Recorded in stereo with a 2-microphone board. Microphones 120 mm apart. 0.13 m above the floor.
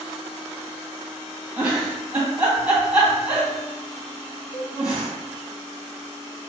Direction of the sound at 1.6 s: 10° right (ahead or behind).